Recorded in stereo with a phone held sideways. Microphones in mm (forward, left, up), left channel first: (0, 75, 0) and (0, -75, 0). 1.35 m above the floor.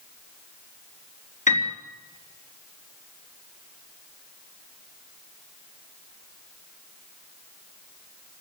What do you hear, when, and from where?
1.5 s a piano: 55° left (ahead or behind), 3.5 m